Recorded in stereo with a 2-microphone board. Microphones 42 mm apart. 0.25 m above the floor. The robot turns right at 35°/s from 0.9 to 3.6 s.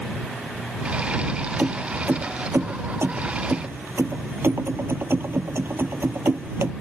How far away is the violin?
No violin in this recording.